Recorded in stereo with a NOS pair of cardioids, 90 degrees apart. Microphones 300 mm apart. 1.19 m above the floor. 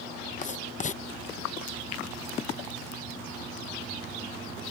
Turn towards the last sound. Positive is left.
turn(degrees=25)